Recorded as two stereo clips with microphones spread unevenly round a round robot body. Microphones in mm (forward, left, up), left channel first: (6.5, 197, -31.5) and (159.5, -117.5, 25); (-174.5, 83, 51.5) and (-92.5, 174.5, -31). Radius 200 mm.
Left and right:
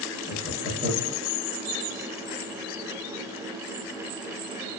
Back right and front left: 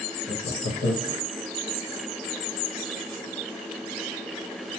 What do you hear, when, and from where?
0.3 s laughter: 145° right, 0.6 m